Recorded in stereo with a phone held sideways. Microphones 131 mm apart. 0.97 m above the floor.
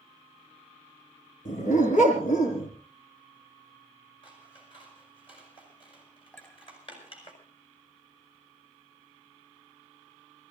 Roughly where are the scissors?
Left.